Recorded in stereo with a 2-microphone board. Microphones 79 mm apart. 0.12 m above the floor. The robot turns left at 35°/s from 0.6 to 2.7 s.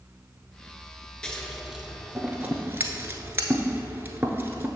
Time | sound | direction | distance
1.2 | scissors | 10° left (ahead or behind) | 0.8 m